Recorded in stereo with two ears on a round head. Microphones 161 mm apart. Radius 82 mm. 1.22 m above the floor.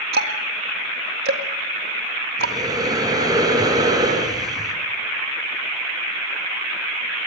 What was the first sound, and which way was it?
Ticking, 55° right (ahead or behind).